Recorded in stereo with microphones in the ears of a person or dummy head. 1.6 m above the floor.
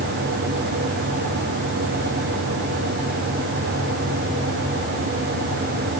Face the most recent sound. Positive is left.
No sound to turn to.